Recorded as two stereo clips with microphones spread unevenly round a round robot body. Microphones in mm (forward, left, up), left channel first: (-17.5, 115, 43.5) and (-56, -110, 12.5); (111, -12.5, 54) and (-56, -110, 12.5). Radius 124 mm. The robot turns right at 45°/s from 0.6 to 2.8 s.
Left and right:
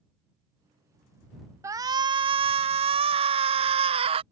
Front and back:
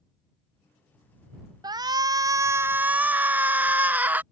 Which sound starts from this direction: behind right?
A shout, at 1.6 s.